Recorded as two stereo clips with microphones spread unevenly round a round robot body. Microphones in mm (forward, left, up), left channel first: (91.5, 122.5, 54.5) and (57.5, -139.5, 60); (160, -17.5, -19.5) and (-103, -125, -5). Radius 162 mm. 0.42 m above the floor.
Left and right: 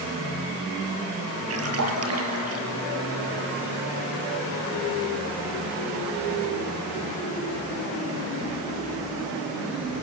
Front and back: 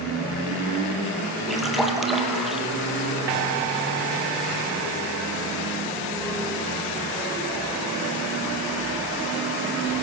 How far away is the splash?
About 5.5 m.